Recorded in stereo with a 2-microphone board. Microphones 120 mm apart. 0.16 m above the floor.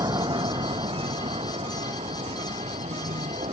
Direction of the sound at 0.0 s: 35° right (ahead or behind).